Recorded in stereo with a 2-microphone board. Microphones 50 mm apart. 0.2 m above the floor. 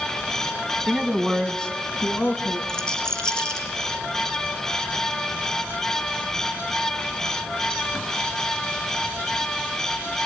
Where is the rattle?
15° left (ahead or behind), 3.5 m.